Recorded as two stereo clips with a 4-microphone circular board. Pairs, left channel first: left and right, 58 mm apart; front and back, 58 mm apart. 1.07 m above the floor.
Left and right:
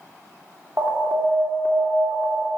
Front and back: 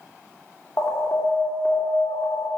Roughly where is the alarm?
Ahead right.